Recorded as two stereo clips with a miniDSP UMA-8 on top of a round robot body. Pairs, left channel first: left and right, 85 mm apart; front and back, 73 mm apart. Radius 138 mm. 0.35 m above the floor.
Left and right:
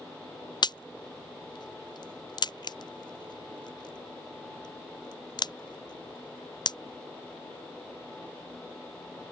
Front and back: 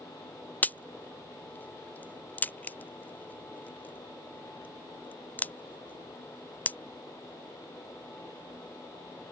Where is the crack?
65° left.